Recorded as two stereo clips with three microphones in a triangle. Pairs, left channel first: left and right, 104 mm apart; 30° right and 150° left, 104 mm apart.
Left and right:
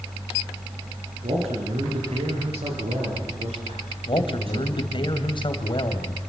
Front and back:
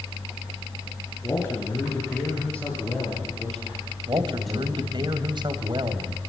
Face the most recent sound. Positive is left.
turn(degrees=115)